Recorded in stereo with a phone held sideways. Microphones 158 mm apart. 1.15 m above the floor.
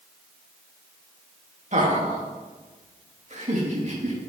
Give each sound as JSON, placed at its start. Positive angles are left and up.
{"t": 1.7, "sound": "laughter", "side_deg": -50, "distance_m": 2.0}